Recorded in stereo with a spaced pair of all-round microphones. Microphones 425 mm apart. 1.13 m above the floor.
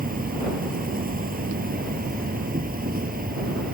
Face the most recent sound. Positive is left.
turn(degrees=-20)  # may be behind; listen again after turning